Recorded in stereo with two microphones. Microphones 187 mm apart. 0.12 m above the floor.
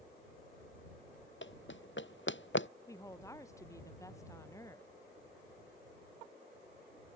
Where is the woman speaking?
15° left (ahead or behind).